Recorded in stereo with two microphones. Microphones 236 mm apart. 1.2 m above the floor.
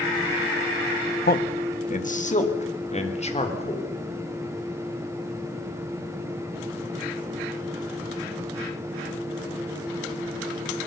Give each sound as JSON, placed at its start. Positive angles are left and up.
{"t": 1.2, "sound": "a man speaking", "side_deg": 40, "distance_m": 1.4}